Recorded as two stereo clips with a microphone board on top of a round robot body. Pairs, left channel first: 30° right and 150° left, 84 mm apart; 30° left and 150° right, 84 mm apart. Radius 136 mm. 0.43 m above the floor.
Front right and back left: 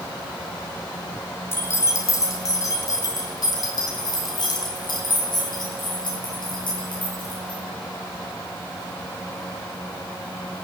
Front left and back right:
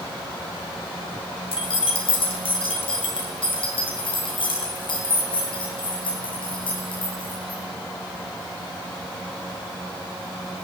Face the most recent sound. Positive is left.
turn(degrees=0)